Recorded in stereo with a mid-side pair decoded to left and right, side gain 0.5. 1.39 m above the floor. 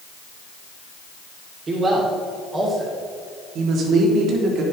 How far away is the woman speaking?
About 3 m.